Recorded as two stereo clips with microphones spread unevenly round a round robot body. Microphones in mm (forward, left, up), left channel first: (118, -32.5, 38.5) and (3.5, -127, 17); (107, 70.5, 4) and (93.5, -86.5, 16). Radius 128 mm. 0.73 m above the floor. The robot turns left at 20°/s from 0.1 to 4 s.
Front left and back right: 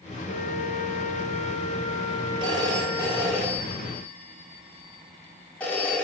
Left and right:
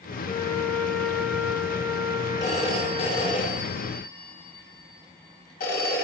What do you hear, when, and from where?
0.3 s a flute: 15° left, 0.8 m; by 3.4 s 45° right, 0.8 m
2.4 s a phone ringing: 160° left, 1.4 m; by 6.0 s 125° left, 1.4 m